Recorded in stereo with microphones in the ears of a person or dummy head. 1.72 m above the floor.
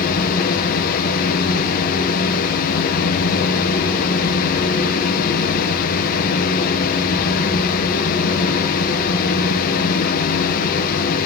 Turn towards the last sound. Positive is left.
turn(degrees=50)  # may be behind; listen again after turning